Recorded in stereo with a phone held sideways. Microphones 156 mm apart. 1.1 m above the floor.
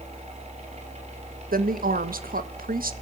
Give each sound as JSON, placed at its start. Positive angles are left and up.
{"t": 0.0, "sound": "a fan", "side_deg": -45, "distance_m": 4.5}
{"t": 1.5, "sound": "a woman speaking", "side_deg": -65, "distance_m": 1.3}